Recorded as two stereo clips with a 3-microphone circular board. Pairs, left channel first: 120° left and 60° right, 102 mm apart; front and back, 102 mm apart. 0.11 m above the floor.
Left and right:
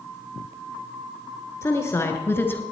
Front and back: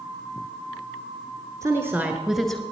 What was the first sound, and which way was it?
A woman speaking, 160° left.